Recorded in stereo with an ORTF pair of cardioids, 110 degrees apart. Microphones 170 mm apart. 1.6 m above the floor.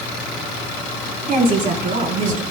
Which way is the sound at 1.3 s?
60° right.